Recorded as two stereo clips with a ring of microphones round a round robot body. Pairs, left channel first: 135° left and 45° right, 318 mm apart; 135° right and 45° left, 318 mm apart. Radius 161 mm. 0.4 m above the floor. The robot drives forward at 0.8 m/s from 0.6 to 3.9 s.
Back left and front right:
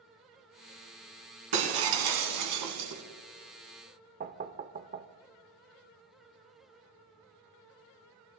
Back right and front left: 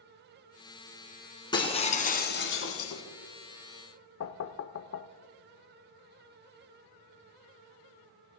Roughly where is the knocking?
Right.